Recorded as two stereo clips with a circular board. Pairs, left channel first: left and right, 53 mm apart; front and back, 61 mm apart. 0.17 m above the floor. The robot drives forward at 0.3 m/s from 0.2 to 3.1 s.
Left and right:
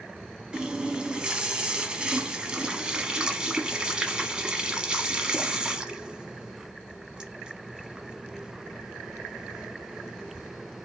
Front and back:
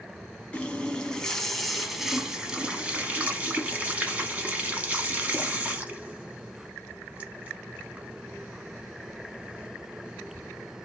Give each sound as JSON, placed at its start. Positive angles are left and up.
{"t": 0.5, "sound": "a running tap", "azimuth_deg": -40, "distance_m": 1.0}